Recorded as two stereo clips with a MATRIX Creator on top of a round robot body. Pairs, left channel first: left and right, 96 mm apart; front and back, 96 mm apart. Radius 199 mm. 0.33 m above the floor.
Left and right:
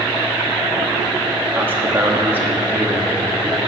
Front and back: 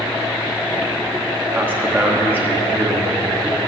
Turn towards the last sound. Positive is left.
turn(degrees=-130)